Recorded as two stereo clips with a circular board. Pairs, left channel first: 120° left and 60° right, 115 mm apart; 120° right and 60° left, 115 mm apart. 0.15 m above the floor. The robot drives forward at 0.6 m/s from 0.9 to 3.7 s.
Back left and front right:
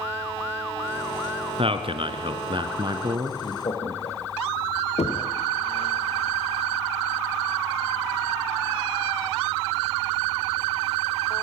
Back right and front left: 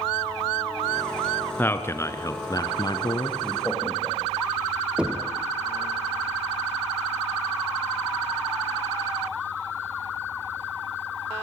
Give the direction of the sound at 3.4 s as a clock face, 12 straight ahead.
7 o'clock.